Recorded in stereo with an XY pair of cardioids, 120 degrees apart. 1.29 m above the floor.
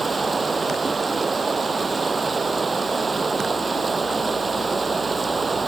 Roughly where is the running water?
Ahead.